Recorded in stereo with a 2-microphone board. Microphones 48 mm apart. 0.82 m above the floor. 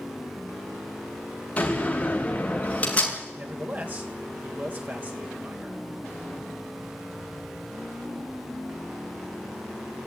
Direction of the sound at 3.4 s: 40° right (ahead or behind).